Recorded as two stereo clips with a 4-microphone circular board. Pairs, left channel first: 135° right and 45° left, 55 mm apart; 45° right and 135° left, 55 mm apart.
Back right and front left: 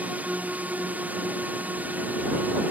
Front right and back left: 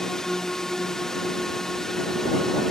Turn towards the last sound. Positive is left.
turn(degrees=30)